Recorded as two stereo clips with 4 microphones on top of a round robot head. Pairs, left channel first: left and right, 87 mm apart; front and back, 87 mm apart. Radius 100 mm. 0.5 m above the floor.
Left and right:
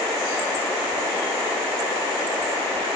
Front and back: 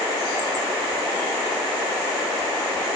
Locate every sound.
Only background noise.